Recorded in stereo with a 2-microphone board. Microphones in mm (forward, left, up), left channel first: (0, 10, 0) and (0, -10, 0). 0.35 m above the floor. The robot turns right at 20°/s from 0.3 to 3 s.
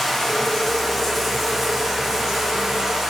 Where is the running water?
155° left, 6 m; by 3.1 s 150° right, 6 m.